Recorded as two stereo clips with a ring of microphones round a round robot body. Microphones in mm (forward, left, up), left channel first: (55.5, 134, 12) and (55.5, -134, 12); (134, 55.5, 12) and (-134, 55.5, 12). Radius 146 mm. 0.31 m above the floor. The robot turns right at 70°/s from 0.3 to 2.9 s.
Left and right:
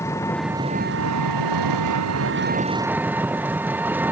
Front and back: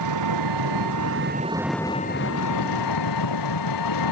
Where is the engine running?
170° left; by 4.1 s 5° right.